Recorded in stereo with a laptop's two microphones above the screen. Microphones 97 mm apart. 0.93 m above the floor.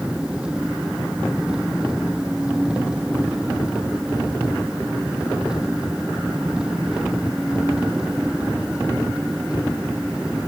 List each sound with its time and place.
0.0 s an engine running: 10° right (ahead or behind)